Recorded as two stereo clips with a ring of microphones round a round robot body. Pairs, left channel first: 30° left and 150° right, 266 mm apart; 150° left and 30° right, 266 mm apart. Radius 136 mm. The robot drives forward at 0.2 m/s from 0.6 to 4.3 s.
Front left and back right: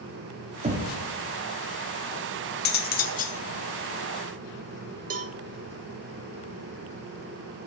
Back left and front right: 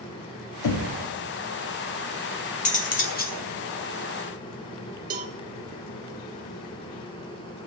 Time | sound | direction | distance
0.6 | knocking | 145° left | 1.1 m
2.6 | cutlery clinking | 85° left | 1.1 m
5.1 | a cowbell | 90° right | 0.7 m